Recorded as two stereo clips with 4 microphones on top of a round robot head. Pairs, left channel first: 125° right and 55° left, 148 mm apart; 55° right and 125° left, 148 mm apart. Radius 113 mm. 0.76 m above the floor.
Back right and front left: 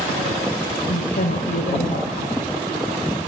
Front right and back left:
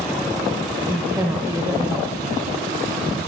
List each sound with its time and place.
0.9 s a woman speaking: 160° right, 3.5 m